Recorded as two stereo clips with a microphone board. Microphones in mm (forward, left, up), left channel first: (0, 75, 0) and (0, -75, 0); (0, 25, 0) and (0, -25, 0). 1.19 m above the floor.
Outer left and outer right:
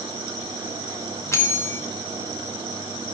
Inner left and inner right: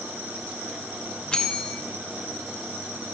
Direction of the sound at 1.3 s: 20° left (ahead or behind).